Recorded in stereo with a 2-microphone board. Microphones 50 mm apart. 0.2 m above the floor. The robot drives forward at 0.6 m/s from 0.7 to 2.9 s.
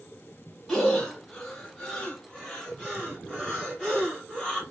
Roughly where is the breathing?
Centre.